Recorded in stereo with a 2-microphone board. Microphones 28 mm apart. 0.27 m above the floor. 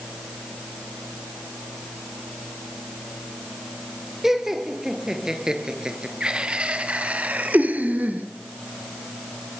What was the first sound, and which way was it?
Laughter, 10° right (ahead or behind).